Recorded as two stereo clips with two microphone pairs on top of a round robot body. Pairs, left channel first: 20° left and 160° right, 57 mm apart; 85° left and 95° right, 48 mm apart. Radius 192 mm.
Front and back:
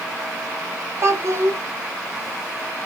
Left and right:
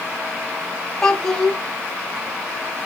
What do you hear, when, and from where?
1.0 s a child speaking: 165° left, 1.5 m